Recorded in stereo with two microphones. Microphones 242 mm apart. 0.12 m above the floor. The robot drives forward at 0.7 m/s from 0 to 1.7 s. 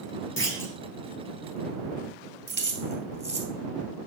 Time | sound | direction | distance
0.4 | a clunk | 50° left (ahead or behind) | 1.8 m
2.5 | keys jangling | 45° right (ahead or behind) | 2 m